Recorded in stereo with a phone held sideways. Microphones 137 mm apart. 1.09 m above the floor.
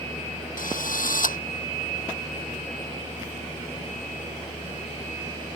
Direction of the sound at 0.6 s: 90° left.